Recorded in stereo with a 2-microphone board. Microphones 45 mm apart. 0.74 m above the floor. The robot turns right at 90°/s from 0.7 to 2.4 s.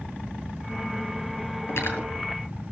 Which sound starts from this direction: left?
Cutlery clinking, at 1.7 s.